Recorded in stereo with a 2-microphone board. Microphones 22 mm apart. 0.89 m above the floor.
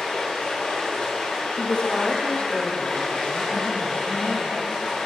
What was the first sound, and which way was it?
Running water, 60° left (ahead or behind).